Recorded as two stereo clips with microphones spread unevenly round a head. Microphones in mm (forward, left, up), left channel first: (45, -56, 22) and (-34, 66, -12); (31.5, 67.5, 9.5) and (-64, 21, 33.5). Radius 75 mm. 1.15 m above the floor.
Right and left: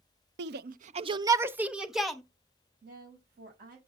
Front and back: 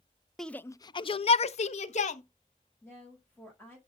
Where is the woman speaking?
105° left, 5.5 m.